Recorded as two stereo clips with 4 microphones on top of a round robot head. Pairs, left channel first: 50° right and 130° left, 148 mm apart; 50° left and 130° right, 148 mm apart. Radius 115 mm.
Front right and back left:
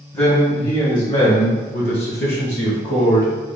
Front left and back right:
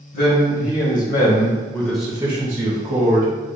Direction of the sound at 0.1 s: 25° left.